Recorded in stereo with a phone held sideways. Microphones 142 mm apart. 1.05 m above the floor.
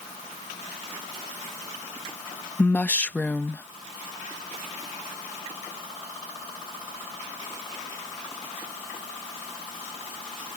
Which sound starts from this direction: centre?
A woman speaking, at 2.6 s.